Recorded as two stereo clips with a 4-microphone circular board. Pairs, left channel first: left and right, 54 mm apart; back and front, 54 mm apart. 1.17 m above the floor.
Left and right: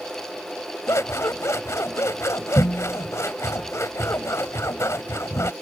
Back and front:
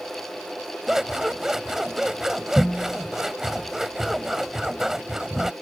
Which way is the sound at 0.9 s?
80° left.